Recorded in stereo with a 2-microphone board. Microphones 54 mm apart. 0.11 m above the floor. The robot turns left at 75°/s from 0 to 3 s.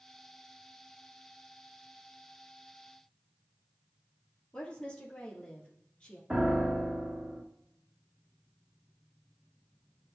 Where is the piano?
15° right (ahead or behind), 1.4 m.